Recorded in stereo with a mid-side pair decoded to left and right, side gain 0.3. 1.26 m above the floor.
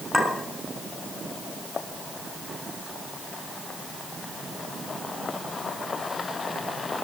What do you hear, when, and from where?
0.1 s a clink: 15° left, 7 m